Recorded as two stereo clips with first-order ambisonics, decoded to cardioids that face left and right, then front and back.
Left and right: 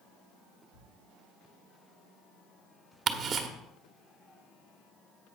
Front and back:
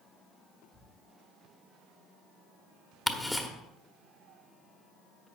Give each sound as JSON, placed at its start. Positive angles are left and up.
{"t": 0.7, "sound": "a thud", "azimuth_deg": 100, "distance_m": 5.0}
{"t": 3.1, "sound": "ticking", "azimuth_deg": -80, "distance_m": 1.2}